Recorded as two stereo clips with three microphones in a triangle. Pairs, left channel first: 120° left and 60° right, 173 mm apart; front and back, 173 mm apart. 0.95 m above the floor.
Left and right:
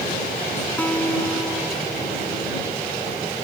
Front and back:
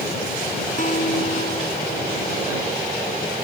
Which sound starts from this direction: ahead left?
A guitar, at 0.8 s.